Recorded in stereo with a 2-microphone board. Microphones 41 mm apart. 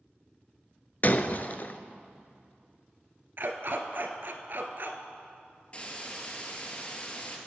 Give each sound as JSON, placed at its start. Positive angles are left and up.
{"t": 1.0, "sound": "breaking glass", "side_deg": 45, "distance_m": 0.5}
{"t": 3.4, "sound": "a dog barking", "side_deg": -55, "distance_m": 1.0}
{"t": 5.7, "sound": "a hiss", "side_deg": 30, "distance_m": 2.0}